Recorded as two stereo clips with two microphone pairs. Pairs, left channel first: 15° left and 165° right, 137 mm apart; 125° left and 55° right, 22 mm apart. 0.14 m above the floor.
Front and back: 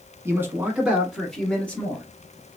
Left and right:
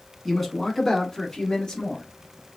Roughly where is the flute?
No flute in this recording.